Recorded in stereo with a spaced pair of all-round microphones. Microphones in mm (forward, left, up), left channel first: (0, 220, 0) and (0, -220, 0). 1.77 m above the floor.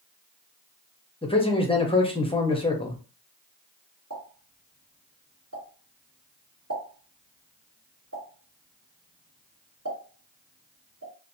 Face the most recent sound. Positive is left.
turn(degrees=-40)  # may be behind; listen again after turning